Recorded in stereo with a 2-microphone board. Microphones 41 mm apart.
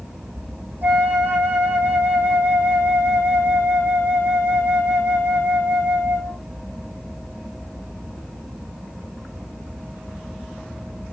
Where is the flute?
50° right (ahead or behind), 5 m.